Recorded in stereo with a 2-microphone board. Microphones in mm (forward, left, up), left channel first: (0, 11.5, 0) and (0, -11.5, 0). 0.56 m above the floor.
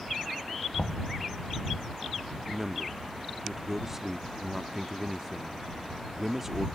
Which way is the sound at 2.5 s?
15° right (ahead or behind).